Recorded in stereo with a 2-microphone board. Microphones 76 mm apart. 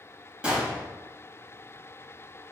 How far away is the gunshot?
About 4 m.